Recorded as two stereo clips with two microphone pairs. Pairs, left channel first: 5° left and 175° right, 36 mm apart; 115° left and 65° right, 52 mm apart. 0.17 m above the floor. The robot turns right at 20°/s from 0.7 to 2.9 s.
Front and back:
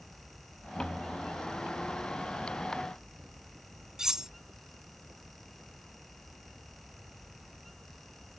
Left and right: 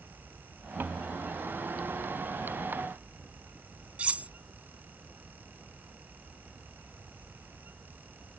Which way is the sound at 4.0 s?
110° right.